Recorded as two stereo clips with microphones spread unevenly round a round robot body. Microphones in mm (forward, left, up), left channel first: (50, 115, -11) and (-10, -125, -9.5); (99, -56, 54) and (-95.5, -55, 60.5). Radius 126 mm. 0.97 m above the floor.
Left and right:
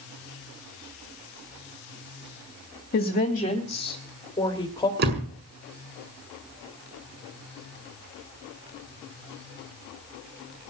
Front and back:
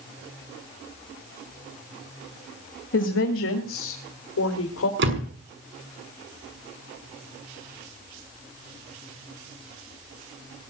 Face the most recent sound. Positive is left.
turn(degrees=-155)